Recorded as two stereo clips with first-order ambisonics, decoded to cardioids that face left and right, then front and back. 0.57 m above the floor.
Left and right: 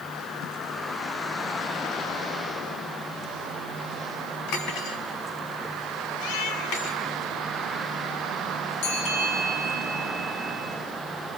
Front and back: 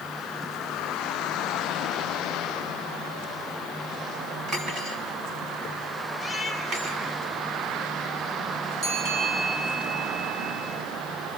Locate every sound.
4.5 s cutlery clinking: 120° left, 3 m
6.2 s a cat meowing: 90° left, 2.5 m
8.8 s a bell: 110° left, 6 m